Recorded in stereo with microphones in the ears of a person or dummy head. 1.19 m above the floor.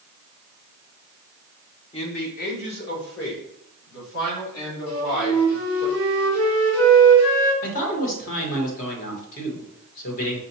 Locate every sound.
1.9 s a man speaking: 30° left (ahead or behind), 0.9 m; by 5.9 s 75° left (ahead or behind), 4 m
4.9 s a flute: 80° left, 1.7 m
7.6 s a man speaking: 45° left (ahead or behind), 1.3 m